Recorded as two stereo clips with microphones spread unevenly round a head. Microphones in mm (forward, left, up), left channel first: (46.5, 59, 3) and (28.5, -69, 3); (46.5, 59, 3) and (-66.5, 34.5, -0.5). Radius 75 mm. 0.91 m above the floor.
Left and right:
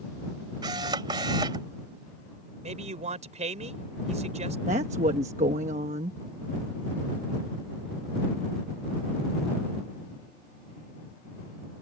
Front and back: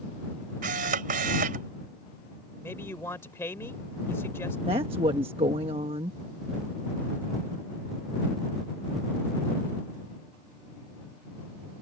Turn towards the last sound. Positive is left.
turn(degrees=-125)